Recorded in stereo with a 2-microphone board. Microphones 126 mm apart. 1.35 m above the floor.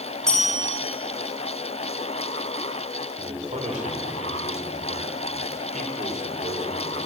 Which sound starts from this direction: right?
A man speaking, at 3.2 s.